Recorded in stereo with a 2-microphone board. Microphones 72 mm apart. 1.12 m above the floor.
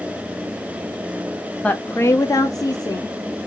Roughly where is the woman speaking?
Centre.